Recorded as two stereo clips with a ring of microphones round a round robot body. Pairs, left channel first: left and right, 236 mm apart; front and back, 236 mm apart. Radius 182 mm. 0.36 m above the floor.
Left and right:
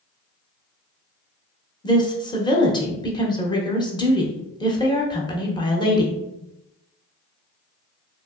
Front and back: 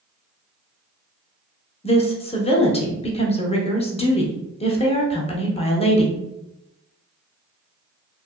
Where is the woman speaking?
35° left, 0.9 m.